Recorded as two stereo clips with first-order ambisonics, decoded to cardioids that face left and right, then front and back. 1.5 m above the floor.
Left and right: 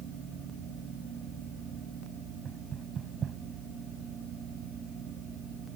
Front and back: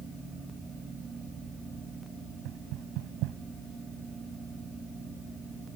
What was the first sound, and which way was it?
Knocking, 155° right.